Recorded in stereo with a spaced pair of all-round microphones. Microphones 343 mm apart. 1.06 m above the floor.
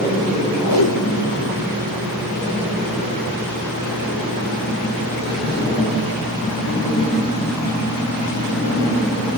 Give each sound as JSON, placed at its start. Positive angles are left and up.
{"t": 0.6, "sound": "tape being pulled", "side_deg": 75, "distance_m": 2.5}